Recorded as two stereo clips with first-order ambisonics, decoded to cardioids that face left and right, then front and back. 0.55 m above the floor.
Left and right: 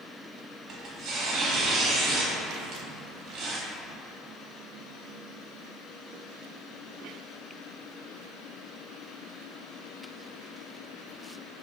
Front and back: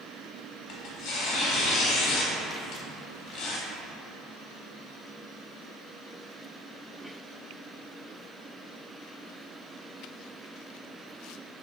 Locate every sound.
0.7 s tearing paper: 35° right, 0.9 m